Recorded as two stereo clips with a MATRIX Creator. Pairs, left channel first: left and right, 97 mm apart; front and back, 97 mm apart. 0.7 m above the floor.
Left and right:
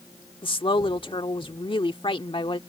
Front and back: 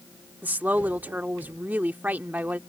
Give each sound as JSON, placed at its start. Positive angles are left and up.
{"t": 0.4, "sound": "a woman speaking", "azimuth_deg": 110}